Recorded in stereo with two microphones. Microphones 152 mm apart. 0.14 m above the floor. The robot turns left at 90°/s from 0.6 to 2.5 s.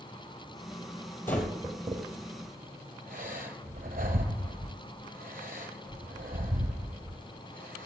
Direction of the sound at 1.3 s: 15° left (ahead or behind).